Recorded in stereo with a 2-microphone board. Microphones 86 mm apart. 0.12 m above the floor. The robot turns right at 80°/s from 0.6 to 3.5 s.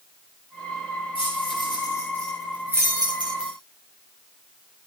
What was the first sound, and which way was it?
Keys jangling, 75° left (ahead or behind).